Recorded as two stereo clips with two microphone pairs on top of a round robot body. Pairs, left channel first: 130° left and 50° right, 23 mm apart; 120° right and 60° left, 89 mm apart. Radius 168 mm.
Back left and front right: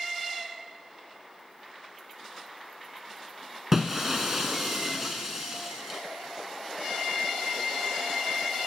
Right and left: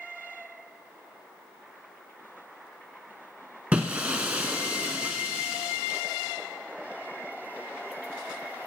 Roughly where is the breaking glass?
Ahead.